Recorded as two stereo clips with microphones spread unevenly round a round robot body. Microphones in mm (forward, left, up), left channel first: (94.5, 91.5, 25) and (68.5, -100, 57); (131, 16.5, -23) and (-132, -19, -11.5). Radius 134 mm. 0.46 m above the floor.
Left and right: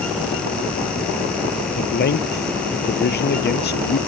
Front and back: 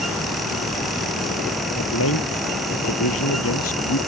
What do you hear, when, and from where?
1.8 s a man speaking: 50° left